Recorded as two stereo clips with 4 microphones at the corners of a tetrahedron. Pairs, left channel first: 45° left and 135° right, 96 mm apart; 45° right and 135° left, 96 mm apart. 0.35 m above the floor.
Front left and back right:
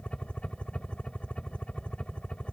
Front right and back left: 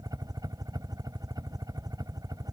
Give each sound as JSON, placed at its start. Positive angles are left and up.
{"t": 0.0, "sound": "a helicopter", "azimuth_deg": 120}